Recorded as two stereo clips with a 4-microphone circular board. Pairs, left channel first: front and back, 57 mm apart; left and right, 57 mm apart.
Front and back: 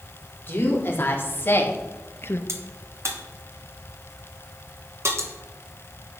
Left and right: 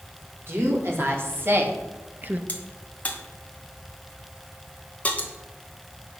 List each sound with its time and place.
0.5 s a woman speaking: 50° right, 4 m; by 2.4 s 35° right, 1.2 m
2.5 s a crack: 150° left, 2 m